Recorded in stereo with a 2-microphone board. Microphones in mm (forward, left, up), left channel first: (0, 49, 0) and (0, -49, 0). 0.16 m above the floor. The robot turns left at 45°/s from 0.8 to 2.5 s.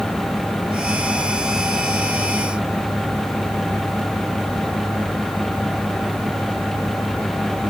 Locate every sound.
Only background noise.